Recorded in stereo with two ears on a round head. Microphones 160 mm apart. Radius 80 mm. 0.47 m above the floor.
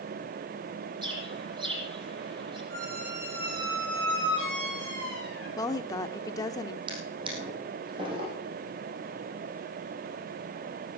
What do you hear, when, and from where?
1.0 s a bird: 30° right (ahead or behind), 8 m
2.7 s a squeak: 75° right (ahead or behind), 7 m
5.6 s a woman speaking: 20° left (ahead or behind), 0.8 m
6.9 s a drawer: 30° right (ahead or behind), 4 m